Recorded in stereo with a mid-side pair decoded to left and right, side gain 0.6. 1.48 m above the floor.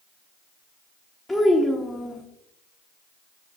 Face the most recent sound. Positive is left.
turn(degrees=10)